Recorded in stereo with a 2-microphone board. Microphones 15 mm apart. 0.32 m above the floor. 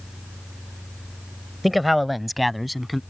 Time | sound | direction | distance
1.6 | a man speaking | 5° right (ahead or behind) | ?